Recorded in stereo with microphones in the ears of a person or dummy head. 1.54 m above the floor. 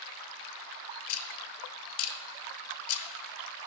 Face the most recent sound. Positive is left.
turn(degrees=85)